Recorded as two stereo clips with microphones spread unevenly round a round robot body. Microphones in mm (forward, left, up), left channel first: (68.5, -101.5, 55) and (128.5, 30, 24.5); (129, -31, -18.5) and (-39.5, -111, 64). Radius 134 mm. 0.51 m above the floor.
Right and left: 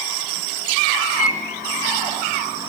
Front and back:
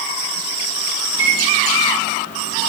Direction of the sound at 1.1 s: 80° right.